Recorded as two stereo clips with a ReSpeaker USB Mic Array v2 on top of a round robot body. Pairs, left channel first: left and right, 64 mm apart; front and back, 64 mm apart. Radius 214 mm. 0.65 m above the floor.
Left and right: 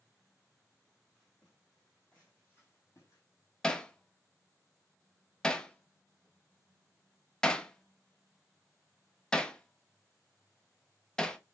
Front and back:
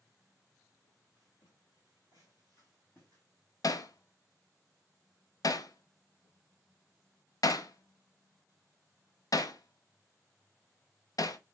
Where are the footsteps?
15° right, 1.3 m; by 3.2 s 70° left, 0.9 m.